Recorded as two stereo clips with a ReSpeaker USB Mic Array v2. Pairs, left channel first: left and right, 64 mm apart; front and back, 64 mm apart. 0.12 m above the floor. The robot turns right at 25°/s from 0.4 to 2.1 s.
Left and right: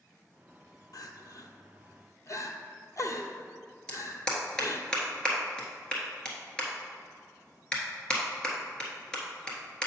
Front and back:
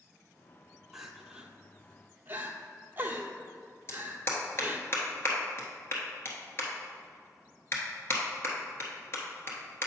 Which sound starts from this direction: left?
Crying, at 0.9 s.